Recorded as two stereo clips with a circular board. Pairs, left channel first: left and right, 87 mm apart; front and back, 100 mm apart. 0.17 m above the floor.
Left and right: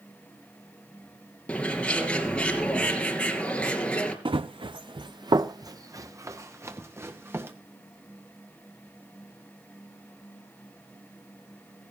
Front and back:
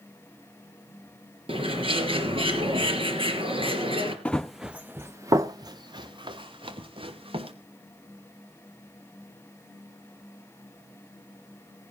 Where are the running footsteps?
80° right, 0.9 m; by 7.5 s 155° right, 3 m.